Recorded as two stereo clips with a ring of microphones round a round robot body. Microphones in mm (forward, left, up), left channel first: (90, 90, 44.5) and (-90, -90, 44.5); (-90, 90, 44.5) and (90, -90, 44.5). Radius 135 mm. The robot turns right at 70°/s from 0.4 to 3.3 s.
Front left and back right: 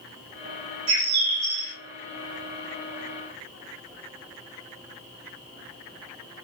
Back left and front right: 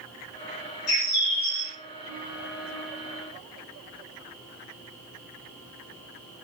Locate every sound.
0.9 s a bird: 165° right, 1.3 m; by 1.7 s 105° right, 1.3 m